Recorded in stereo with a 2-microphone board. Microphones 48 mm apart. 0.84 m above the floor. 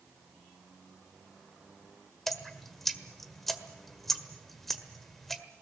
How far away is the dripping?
About 1.5 m.